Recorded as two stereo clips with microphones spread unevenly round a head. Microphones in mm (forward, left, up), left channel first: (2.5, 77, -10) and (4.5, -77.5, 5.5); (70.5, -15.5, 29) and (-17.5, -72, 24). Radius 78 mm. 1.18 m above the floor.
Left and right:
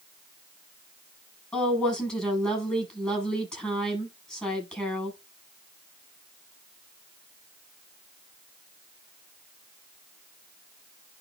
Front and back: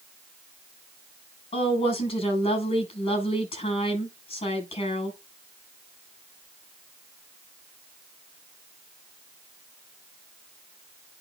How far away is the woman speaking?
About 8 m.